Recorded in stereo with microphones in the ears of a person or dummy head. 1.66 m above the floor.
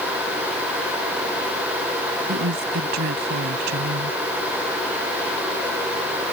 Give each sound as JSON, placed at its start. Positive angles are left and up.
{"t": 2.2, "sound": "a woman speaking", "side_deg": -60}